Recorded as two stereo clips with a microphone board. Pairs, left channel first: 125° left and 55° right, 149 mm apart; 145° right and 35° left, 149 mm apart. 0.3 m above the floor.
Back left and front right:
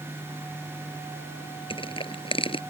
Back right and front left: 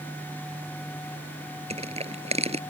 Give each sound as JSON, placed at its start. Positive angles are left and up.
{"t": 1.7, "sound": "crushing", "azimuth_deg": 75}